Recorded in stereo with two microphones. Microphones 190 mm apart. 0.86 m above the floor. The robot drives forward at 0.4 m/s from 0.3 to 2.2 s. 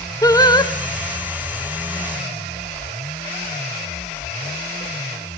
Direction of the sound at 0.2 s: 20° left (ahead or behind).